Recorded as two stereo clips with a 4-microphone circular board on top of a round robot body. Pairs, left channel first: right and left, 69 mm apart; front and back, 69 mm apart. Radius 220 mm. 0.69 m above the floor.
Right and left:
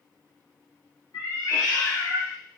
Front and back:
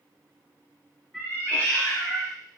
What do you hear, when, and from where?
1.1 s a cat meowing: 80° right, 1.2 m; by 2.3 s 20° right, 1.1 m